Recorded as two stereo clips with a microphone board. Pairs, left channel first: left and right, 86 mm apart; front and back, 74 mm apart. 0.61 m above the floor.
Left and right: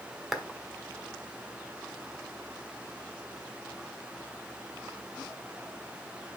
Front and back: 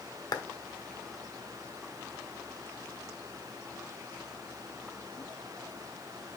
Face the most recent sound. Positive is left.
turn(degrees=-5)